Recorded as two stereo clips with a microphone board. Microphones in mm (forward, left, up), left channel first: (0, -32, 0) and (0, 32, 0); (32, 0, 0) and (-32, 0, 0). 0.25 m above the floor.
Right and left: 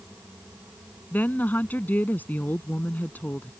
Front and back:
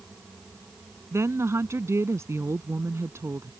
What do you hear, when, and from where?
1.1 s a woman speaking: 150° right